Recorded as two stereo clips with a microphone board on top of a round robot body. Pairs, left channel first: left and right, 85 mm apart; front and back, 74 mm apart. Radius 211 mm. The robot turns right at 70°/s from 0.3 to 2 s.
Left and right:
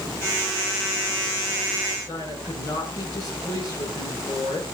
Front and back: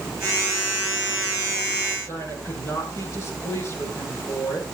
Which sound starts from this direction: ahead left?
A woman speaking, at 2.1 s.